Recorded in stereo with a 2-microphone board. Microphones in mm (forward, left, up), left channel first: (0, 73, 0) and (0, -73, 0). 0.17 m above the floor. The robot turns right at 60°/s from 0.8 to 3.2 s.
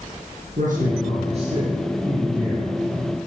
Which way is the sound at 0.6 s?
90° right.